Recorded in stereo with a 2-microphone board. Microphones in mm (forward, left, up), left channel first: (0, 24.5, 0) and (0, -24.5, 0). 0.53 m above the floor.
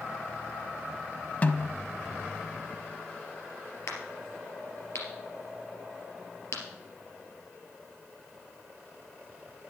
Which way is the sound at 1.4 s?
30° left (ahead or behind).